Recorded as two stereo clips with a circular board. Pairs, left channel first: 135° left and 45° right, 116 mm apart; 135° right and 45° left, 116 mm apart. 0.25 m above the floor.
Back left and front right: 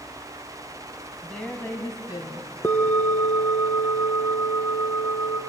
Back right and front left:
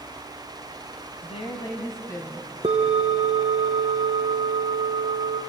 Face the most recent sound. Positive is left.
turn(degrees=70)